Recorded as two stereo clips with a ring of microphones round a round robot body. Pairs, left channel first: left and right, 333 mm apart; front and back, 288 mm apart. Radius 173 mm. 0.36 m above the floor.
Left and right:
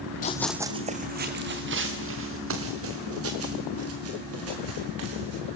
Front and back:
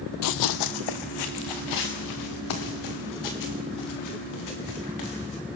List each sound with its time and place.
0.2 s running footsteps: 25° left, 0.6 m; by 5.4 s 40° right, 6 m